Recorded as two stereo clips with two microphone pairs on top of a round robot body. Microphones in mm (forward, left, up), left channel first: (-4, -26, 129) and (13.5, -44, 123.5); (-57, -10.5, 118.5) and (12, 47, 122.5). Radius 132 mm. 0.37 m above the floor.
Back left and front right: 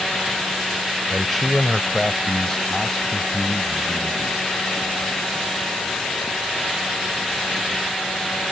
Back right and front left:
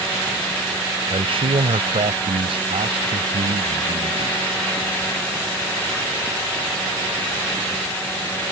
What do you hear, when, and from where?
1.1 s a man speaking: 40° left; by 4.4 s 65° left